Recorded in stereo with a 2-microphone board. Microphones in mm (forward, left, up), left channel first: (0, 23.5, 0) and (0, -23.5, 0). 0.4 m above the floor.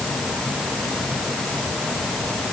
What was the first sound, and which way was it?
Only background noise.